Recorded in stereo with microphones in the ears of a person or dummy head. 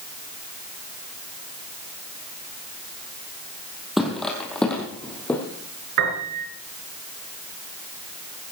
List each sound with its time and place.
4.0 s footsteps: 5° right (ahead or behind), 3 m; by 5.4 s 10° left (ahead or behind), 4.5 m
6.0 s a piano: 65° right (ahead or behind), 4.5 m